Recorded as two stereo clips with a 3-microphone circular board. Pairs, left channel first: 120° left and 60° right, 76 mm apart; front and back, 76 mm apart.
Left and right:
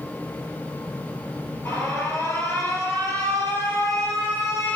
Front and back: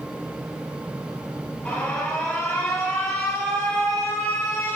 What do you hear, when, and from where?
1.6 s an alarm: 70° left, 1.5 m